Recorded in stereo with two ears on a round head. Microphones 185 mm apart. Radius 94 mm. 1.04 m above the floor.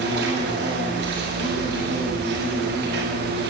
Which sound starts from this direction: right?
An insect, at 0.0 s.